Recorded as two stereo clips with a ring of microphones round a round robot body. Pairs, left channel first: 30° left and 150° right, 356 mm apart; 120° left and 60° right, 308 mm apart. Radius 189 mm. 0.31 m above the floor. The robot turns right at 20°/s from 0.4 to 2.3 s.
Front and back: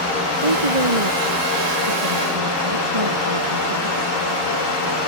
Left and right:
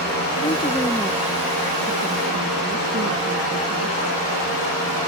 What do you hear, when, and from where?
0.4 s a woman speaking: 165° right; by 4.2 s 125° right